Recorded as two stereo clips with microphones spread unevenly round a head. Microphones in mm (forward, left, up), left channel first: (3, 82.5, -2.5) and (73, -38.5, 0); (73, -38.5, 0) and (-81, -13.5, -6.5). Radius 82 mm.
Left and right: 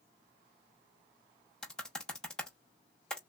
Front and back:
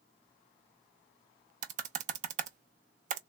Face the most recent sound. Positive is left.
turn(degrees=-155)